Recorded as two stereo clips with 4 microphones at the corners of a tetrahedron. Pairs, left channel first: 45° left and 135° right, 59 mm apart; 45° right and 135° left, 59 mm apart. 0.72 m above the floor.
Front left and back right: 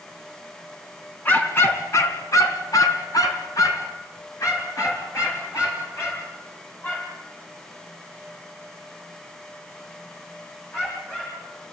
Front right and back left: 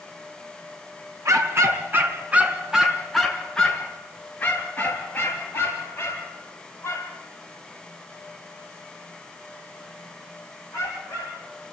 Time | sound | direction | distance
1.2 | a dog barking | 100° left | 2.5 m